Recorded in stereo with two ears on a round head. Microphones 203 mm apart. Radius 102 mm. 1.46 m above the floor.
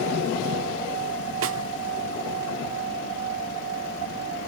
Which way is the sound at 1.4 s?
55° right (ahead or behind).